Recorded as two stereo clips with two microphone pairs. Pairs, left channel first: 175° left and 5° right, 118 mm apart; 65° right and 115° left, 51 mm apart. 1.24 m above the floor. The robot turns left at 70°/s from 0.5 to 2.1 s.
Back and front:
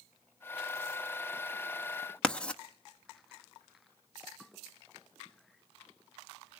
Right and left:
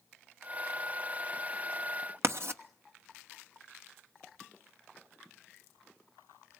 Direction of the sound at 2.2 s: 100° left.